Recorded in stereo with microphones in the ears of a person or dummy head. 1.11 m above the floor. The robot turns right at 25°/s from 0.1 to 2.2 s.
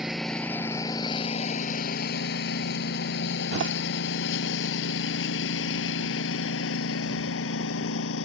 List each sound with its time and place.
0.0 s a lawn mower: centre (ahead or behind); by 8.2 s 85° left
3.5 s a door slam: 70° right (ahead or behind)